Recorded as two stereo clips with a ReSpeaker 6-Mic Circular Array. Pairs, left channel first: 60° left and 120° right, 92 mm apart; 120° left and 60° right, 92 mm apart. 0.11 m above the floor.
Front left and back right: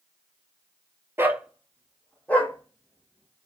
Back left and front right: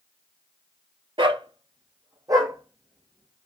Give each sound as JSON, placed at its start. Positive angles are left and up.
{"t": 1.2, "sound": "a dog barking", "azimuth_deg": -60, "distance_m": 0.5}